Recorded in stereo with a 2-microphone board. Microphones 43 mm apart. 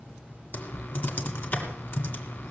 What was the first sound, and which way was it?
Typing on a keyboard, 55° left (ahead or behind).